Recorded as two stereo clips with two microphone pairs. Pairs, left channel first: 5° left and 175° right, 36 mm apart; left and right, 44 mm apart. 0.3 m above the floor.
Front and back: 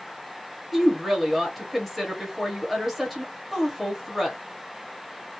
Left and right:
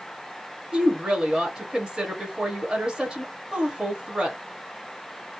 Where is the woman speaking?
80° right, 0.9 m.